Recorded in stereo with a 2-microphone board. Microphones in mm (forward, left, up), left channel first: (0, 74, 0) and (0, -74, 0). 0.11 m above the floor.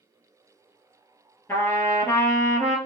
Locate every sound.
1.5 s a trumpet: 15° left (ahead or behind), 1.7 m